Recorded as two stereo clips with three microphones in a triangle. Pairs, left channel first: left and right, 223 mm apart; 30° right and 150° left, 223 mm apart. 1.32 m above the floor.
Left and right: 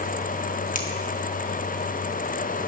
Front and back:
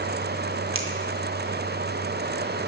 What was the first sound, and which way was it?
A finger snap, 140° left.